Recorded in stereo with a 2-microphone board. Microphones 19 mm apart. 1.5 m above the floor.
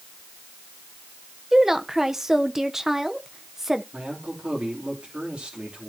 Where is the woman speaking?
20° right (ahead or behind), 1.0 m.